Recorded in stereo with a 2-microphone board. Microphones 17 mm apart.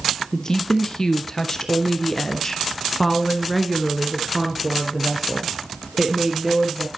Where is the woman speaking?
35° left (ahead or behind), 2.5 m; by 6.9 s 20° right (ahead or behind), 3.5 m.